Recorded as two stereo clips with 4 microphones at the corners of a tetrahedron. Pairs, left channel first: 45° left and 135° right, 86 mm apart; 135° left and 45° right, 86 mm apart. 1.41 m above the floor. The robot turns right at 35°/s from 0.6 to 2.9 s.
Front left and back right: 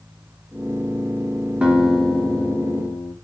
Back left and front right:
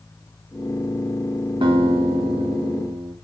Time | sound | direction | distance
1.6 | a guitar | 60° right | 1.9 m